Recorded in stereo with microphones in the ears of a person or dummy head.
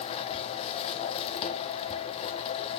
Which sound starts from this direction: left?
A machine running, at 0.0 s.